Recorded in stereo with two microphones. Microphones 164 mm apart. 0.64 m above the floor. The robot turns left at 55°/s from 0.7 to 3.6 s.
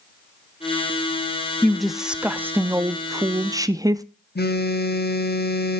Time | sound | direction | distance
1.6 | a woman speaking | 5° left (ahead or behind) | 0.5 m
4.3 | a phone buzzing | 75° left (ahead or behind) | 0.8 m